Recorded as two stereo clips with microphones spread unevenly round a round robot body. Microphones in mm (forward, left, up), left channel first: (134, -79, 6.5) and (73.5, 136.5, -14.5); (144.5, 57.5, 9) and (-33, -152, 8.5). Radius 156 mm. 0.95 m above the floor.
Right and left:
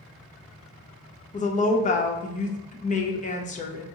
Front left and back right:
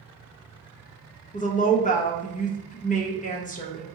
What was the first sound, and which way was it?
A woman speaking, 15° right.